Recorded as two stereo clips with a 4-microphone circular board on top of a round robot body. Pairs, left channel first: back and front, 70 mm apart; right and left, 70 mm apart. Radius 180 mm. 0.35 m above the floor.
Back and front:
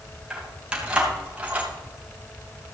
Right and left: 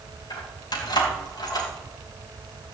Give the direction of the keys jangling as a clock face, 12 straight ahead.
3 o'clock.